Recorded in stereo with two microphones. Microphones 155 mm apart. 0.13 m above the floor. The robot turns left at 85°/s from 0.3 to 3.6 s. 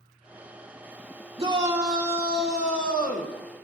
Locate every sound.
1.4 s a shout: 135° right, 2 m; by 3.3 s 60° left, 2 m